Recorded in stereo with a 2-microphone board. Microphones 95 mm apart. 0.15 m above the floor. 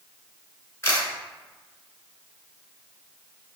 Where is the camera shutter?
30° left (ahead or behind), 1.3 m.